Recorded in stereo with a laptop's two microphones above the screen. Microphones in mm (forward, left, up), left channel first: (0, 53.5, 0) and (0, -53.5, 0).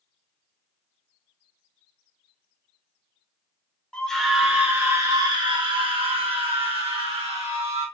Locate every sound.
3.9 s a scream: 10° left (ahead or behind), 0.8 m; by 7.9 s 70° right (ahead or behind), 2.0 m